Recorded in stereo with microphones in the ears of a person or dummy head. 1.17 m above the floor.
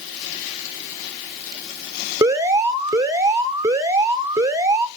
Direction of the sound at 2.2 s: 15° right (ahead or behind).